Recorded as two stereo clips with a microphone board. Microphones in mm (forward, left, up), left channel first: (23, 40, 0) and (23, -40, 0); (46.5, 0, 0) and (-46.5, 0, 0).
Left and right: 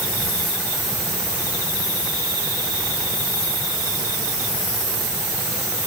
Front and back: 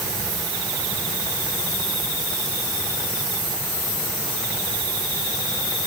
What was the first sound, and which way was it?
Only background noise.